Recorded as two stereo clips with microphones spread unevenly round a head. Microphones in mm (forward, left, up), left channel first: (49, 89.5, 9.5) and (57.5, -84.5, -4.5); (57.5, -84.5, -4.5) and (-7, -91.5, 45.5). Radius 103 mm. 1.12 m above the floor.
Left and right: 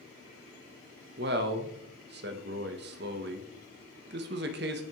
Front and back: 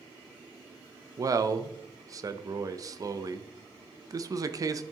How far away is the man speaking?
About 0.7 m.